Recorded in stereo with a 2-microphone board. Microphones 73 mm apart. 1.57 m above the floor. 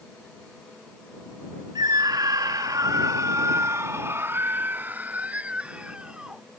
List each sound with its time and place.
1.8 s a scream: 75° right (ahead or behind); by 6.4 s 10° right (ahead or behind)